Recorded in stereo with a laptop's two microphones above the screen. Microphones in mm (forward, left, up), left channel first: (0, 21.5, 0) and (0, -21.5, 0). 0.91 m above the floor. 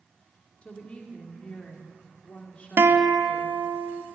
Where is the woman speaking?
30° left (ahead or behind), 1.7 m.